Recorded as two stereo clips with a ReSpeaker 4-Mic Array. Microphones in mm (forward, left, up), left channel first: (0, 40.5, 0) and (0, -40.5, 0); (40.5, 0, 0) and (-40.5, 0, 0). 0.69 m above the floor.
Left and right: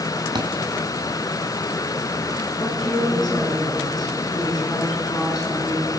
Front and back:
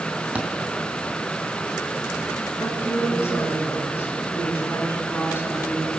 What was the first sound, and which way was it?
A thud, 105° right.